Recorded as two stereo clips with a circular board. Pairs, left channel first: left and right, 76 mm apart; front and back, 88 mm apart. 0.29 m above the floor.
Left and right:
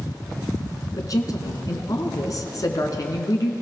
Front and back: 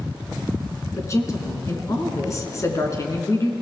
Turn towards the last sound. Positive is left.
turn(degrees=50)